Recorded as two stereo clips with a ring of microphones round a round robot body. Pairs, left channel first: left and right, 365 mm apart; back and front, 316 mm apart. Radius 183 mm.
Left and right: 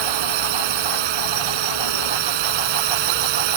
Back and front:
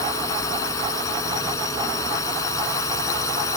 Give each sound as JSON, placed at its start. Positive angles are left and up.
{"t": 0.0, "sound": "a drone", "azimuth_deg": -100}